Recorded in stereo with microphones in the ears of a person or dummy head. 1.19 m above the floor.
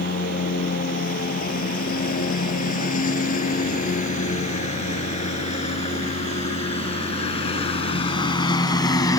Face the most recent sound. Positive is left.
turn(degrees=15)  # may be behind; listen again after turning